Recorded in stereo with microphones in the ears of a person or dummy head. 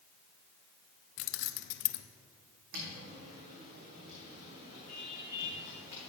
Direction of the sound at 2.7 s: 55° right (ahead or behind).